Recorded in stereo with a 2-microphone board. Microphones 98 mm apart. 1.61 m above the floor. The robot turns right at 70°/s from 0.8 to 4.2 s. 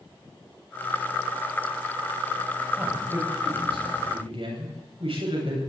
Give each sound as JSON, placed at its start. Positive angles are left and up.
{"t": 2.8, "sound": "a man speaking", "azimuth_deg": -170, "distance_m": 10.0}